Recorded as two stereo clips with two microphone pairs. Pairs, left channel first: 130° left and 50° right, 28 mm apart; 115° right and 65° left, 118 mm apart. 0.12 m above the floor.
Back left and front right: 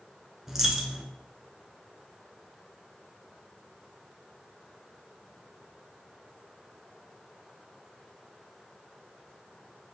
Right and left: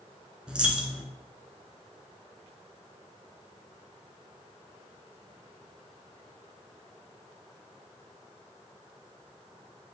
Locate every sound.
0.5 s a dropped coin: straight ahead, 0.7 m